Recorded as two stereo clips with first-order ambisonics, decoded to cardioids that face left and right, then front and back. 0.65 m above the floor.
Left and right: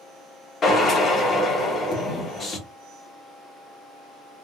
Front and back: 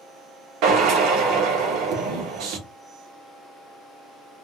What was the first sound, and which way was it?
A drill, 155° left.